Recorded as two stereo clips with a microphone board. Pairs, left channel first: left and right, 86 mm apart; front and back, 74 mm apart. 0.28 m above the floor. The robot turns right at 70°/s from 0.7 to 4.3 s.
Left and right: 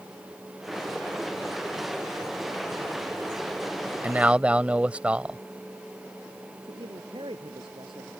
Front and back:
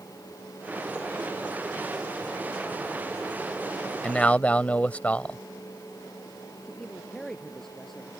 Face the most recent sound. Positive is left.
turn(degrees=-85)